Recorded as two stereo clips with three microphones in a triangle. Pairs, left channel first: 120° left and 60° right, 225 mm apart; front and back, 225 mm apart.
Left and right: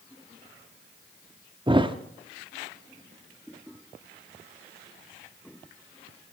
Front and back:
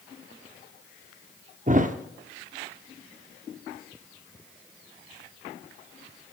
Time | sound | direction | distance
1.7 | a thud | 130° right | 0.7 m